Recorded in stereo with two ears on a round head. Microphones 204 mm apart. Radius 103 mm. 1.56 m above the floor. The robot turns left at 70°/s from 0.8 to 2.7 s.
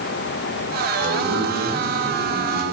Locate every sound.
0.9 s a man speaking: 90° right, 7 m; by 2.6 s 150° left, 7 m